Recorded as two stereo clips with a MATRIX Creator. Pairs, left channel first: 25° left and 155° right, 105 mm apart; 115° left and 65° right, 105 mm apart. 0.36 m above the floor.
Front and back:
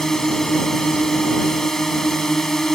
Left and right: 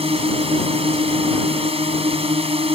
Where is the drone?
65° right.